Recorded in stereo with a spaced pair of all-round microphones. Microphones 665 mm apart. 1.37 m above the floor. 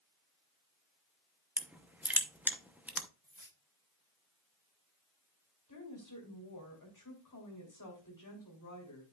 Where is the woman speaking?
25° left (ahead or behind), 3 m.